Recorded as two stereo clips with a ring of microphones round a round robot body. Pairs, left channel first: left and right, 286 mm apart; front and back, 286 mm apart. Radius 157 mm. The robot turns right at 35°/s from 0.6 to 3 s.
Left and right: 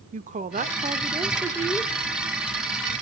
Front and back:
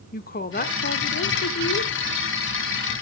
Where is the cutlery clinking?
No cutlery clinking in this recording.